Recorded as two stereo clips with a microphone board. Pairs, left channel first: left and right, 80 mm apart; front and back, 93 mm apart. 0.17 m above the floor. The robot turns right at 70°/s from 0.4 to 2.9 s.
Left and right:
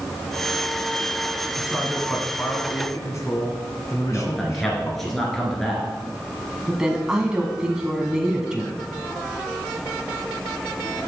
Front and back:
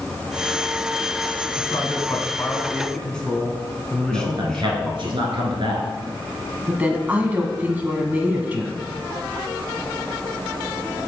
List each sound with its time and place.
1.6 s a man speaking: 15° right, 1.8 m; by 5.1 s 75° left, 1.8 m
4.1 s a man speaking: 175° left, 2 m
6.7 s a woman speaking: 150° right, 1.0 m